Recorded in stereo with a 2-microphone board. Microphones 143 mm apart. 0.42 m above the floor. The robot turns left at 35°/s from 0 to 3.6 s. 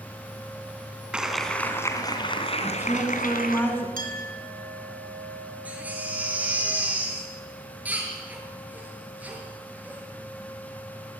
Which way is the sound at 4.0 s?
70° right (ahead or behind).